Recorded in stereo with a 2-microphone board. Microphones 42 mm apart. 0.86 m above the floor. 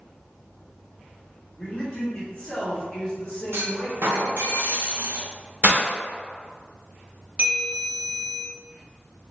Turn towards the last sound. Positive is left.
turn(degrees=-25)  # may be behind; listen again after turning